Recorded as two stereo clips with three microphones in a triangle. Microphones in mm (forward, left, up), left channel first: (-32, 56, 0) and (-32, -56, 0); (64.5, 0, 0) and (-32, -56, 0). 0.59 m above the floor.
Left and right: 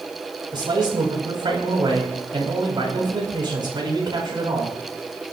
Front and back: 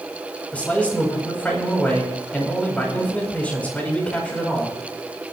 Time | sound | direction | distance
0.5 | a man speaking | 45° right | 4 m